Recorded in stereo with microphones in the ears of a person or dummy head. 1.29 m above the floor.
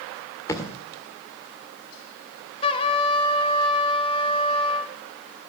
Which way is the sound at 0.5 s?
20° left (ahead or behind).